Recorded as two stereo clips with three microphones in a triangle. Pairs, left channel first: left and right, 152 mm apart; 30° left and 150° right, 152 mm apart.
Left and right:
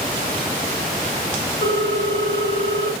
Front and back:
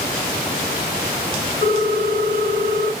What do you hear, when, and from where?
1.6 s a ringtone: 70° left, 1.9 m